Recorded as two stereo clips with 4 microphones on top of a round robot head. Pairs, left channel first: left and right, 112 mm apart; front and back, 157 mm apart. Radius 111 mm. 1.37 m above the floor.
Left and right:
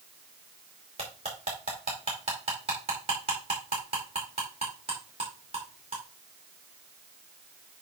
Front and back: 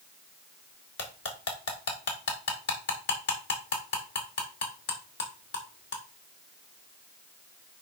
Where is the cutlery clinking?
30° right, 2 m.